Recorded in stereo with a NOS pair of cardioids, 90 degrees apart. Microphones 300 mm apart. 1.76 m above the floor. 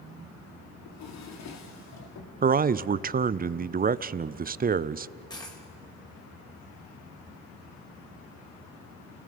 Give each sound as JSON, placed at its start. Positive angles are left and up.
{"t": 0.8, "sound": "a drawer", "azimuth_deg": 65, "distance_m": 3.0}
{"t": 2.4, "sound": "a man speaking", "azimuth_deg": -30, "distance_m": 0.6}
{"t": 5.3, "sound": "a dropped coin", "azimuth_deg": 15, "distance_m": 4.0}